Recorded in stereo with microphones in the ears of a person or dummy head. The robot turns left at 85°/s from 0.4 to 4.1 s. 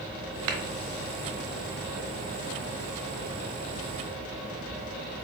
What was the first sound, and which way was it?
A clap, 70° right (ahead or behind).